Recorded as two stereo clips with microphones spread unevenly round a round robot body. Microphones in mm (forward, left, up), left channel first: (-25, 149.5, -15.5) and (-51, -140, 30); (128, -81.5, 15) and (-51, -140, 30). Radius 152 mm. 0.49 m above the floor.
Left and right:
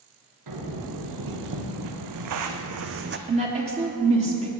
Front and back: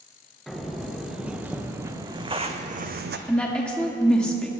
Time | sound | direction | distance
0.5 | footsteps | 70° right | 3.5 m
3.3 | a woman speaking | 45° right | 1.3 m